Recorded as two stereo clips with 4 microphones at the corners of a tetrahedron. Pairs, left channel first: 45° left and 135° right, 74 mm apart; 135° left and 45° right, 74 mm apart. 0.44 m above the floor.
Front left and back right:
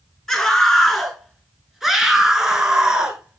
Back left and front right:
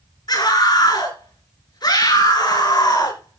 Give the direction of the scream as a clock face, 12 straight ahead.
8 o'clock.